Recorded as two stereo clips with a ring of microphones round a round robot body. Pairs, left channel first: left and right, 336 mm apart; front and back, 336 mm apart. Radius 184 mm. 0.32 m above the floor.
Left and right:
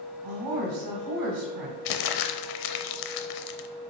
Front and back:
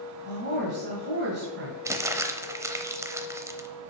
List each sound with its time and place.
0.2 s a woman speaking: 120° right, 1.9 m
1.9 s crumpling: 100° left, 0.7 m